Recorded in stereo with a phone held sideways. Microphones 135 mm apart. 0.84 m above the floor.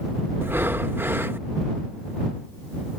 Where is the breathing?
15° right (ahead or behind).